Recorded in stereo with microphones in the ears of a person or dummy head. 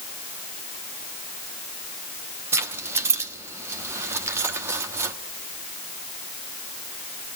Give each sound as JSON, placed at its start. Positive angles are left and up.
{"t": 2.5, "sound": "keys jangling", "side_deg": -15, "distance_m": 1.2}